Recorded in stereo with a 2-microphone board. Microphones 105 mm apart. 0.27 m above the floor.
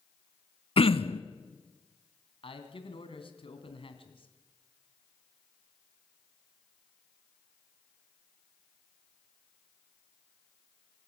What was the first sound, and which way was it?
Throat clearing, 65° left (ahead or behind).